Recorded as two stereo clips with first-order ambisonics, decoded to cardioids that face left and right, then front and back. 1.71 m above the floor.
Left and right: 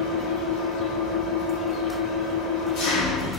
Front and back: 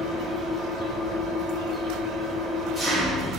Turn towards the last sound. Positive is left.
turn(degrees=95)